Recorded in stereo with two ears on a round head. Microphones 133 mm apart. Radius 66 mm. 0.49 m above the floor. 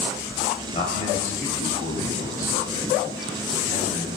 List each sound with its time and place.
0.7 s a man speaking: 45° left (ahead or behind), 2.5 m; by 4.1 s 60° left (ahead or behind), 4.5 m